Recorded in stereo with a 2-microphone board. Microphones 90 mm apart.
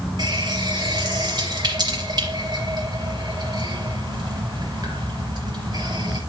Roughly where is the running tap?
Right.